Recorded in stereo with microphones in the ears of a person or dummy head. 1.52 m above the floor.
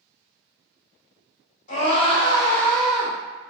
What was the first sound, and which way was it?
A scream, 45° left (ahead or behind).